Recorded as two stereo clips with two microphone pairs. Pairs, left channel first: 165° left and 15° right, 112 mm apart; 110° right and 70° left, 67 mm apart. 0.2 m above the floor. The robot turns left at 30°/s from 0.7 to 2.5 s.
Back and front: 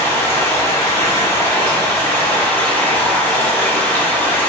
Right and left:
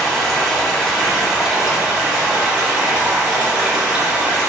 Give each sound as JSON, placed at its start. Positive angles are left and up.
{"t": 0.0, "sound": "running water", "azimuth_deg": 170, "distance_m": 1.0}